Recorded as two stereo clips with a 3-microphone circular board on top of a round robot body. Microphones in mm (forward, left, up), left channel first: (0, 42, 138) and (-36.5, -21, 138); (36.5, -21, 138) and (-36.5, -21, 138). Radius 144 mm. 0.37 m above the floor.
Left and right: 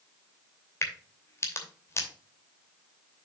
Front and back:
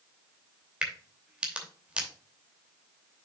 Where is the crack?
105° left, 2.5 m.